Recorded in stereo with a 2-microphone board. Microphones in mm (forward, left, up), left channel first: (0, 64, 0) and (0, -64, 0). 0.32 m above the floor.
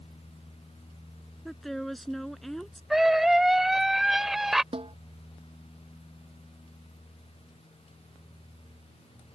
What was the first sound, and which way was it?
A woman speaking, centre (ahead or behind).